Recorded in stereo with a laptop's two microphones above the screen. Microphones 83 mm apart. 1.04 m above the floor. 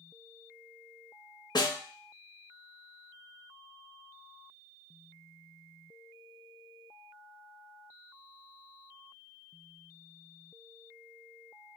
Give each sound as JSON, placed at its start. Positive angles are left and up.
{"t": 1.6, "sound": "a snare drum", "side_deg": 60, "distance_m": 0.7}